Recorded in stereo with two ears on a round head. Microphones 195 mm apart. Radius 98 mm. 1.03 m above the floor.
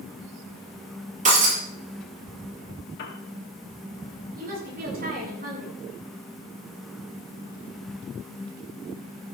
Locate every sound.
1.2 s breaking glass: 35° right (ahead or behind), 6.5 m
3.0 s a piano: 50° left (ahead or behind), 2.5 m
4.3 s a woman speaking: 45° right (ahead or behind), 8 m